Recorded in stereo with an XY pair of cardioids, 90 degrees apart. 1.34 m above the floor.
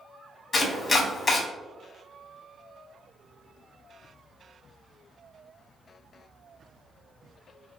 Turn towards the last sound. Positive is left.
turn(degrees=40)